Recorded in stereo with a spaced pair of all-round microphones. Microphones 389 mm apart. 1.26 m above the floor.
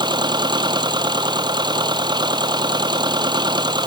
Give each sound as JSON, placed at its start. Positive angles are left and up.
{"t": 0.0, "sound": "a machine running", "side_deg": -10}